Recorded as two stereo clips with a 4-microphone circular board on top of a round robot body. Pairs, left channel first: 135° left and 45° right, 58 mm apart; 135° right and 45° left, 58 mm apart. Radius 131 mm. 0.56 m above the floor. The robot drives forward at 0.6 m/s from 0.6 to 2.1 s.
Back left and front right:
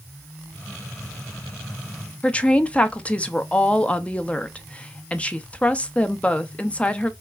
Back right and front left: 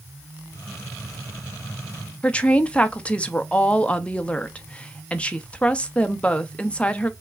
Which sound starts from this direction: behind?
A woman speaking, at 2.2 s.